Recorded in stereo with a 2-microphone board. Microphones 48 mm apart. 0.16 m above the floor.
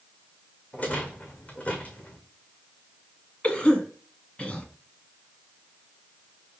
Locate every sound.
0.7 s a rattle: 30° left (ahead or behind), 1.7 m
3.4 s a cough: 25° left (ahead or behind), 1.4 m